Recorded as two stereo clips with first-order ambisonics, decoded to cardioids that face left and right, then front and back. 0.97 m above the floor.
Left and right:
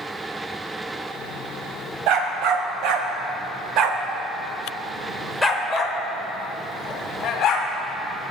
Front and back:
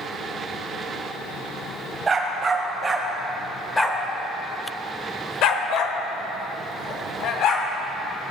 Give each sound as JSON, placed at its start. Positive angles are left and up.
{"t": 2.1, "sound": "a dog barking", "azimuth_deg": -110, "distance_m": 1.5}